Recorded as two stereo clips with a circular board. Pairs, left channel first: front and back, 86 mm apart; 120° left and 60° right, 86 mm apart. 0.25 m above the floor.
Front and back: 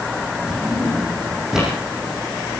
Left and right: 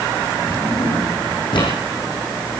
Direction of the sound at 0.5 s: 95° left.